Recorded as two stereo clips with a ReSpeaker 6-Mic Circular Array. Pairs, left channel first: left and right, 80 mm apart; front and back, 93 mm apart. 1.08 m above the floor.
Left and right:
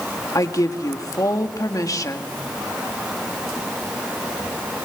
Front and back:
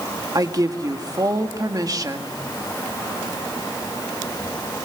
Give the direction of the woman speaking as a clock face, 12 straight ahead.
8 o'clock.